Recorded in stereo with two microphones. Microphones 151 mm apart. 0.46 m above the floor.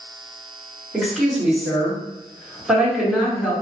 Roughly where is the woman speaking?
Centre.